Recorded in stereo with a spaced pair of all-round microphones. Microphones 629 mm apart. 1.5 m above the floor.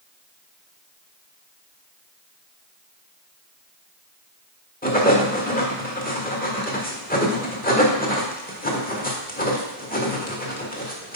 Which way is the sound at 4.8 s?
15° left (ahead or behind).